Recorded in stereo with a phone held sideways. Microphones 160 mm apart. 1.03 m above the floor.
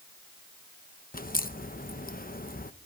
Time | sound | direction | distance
1.1 | a crack | 60° left (ahead or behind) | 0.9 m